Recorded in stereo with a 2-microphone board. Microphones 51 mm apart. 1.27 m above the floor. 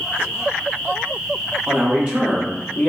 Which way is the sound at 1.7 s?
40° right (ahead or behind).